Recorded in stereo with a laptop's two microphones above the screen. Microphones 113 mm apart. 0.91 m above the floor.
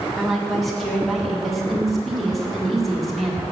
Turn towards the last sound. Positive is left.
turn(degrees=0)  # may be behind; listen again after turning